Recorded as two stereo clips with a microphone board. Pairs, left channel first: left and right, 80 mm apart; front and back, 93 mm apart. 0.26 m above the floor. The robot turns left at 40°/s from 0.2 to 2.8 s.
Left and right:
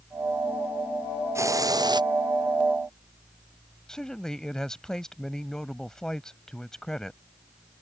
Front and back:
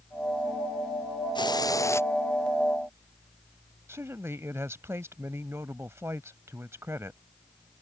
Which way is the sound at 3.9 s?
165° left.